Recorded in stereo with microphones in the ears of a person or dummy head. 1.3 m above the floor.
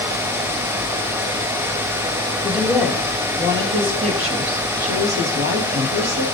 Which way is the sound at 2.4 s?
Centre (ahead or behind).